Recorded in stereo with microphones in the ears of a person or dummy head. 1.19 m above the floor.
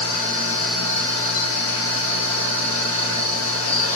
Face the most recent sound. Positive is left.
turn(degrees=70)  # may be behind; listen again after turning